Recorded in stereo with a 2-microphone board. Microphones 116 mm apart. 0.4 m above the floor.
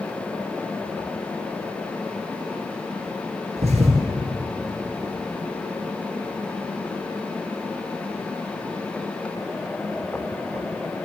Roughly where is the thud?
Right.